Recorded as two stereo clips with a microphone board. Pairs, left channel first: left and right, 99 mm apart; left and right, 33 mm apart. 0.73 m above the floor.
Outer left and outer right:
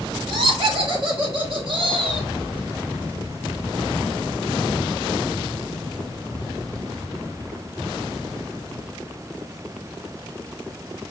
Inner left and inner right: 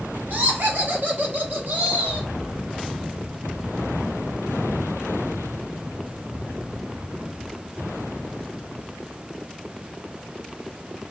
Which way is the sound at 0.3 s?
65° right (ahead or behind).